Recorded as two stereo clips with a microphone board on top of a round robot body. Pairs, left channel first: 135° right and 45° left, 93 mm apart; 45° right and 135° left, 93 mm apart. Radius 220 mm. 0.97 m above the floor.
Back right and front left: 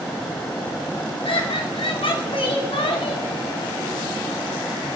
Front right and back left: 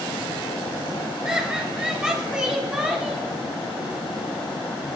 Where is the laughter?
145° right, 4 m.